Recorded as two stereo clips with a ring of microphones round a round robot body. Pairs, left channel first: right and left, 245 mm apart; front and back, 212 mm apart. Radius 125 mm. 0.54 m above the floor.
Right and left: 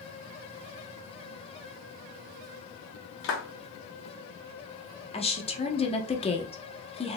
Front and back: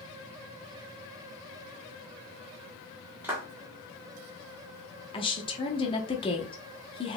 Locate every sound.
3.2 s a clap: 100° right, 1.3 m
5.1 s a woman speaking: 45° right, 0.9 m